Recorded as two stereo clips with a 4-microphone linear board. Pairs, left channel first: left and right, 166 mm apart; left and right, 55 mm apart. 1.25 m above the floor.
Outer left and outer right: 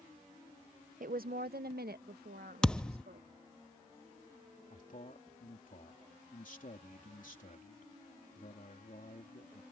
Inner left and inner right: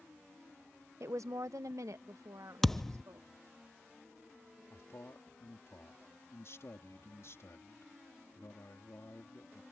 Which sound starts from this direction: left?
A man speaking, at 4.7 s.